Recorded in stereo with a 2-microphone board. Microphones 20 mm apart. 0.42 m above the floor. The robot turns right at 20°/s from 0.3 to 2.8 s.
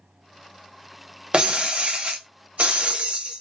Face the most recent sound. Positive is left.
turn(degrees=-75)  # may be behind; listen again after turning